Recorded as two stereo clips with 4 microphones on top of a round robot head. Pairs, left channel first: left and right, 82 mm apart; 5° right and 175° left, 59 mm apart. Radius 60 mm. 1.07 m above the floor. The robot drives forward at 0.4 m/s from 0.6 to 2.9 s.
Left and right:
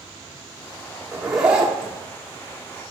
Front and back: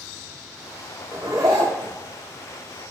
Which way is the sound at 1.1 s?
160° right.